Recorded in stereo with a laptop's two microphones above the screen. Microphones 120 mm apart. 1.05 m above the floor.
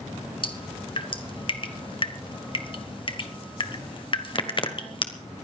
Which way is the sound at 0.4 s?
40° left (ahead or behind).